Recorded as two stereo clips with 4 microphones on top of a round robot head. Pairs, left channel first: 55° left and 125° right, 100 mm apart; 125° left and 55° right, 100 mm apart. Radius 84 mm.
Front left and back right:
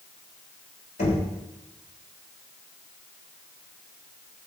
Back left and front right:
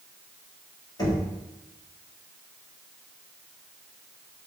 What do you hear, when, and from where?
1.0 s knocking: 70° left, 5 m